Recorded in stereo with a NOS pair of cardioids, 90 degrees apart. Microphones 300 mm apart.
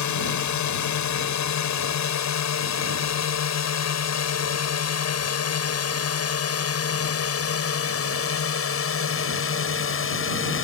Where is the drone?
65° left; by 10.6 s 40° left.